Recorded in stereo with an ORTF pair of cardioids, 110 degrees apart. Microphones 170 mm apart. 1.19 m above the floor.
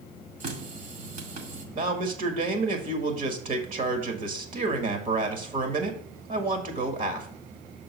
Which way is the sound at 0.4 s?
45° right.